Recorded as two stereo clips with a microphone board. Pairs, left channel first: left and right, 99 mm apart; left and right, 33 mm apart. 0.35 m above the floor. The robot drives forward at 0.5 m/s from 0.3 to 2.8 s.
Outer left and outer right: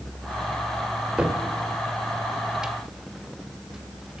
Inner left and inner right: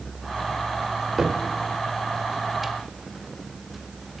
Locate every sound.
1.2 s a cupboard door: 10° right (ahead or behind), 0.6 m